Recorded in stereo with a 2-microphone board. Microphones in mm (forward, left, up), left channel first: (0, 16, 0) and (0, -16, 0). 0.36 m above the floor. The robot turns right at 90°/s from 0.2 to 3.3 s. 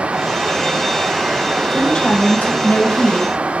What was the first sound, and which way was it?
A woman speaking, 10° left.